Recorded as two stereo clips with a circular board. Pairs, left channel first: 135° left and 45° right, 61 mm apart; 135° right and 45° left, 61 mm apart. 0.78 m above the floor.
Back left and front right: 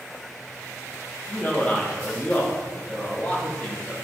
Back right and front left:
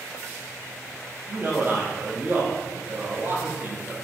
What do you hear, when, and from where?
1.3 s a man speaking: 70° left, 0.8 m